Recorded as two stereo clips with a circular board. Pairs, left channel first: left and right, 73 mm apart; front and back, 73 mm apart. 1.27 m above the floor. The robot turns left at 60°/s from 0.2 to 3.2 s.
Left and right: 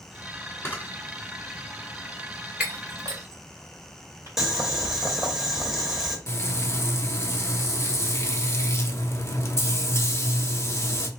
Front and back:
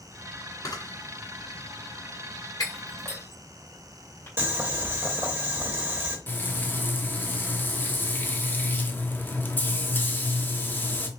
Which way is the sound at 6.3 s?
55° left.